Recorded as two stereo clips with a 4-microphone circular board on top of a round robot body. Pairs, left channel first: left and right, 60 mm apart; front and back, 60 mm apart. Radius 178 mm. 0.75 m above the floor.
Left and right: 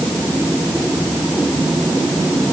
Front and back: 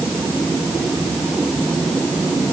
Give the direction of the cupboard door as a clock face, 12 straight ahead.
I don't hear a cupboard door.